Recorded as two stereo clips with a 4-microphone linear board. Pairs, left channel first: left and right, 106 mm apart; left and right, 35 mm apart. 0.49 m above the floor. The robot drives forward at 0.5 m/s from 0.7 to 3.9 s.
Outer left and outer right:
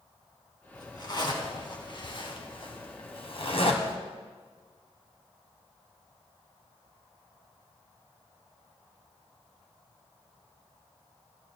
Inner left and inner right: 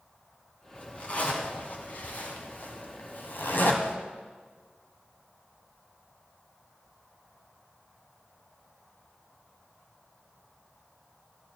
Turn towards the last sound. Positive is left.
turn(degrees=75)  # may be behind; listen again after turning